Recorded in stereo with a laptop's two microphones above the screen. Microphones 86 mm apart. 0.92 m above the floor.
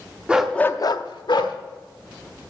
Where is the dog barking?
15° right (ahead or behind), 0.8 m; by 1.6 s 65° left (ahead or behind), 1.3 m.